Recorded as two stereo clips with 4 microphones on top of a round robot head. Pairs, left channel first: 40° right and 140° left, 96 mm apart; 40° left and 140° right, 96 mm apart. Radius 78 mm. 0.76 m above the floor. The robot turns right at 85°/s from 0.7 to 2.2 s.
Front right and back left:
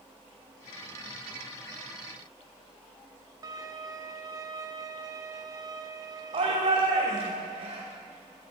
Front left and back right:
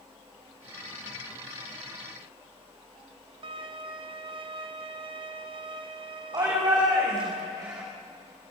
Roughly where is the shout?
Behind.